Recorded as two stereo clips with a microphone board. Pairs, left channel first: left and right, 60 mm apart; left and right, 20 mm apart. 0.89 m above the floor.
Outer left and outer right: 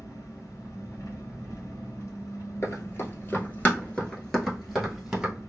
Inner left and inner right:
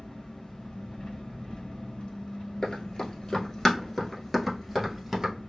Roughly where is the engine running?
Left.